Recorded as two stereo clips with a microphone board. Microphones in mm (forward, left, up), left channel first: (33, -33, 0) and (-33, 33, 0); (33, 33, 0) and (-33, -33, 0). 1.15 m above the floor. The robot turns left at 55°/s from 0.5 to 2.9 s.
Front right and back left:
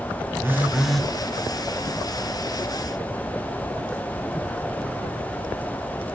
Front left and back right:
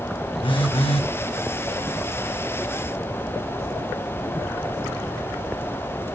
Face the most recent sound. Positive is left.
turn(degrees=-65)